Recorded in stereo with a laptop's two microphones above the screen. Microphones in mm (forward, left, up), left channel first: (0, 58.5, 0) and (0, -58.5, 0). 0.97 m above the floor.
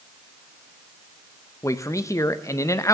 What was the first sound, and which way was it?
A man speaking, 25° left (ahead or behind).